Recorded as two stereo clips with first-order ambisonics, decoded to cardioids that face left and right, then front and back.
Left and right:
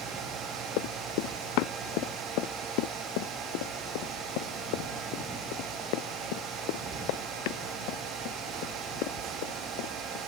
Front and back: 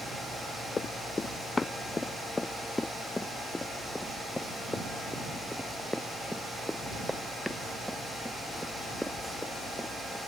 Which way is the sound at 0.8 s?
75° left.